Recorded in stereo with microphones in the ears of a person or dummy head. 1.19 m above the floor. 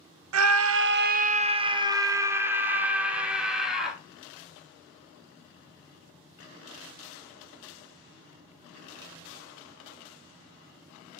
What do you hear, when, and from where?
0.3 s a scream: 80° right, 0.5 m; by 4.0 s centre (ahead or behind), 1.8 m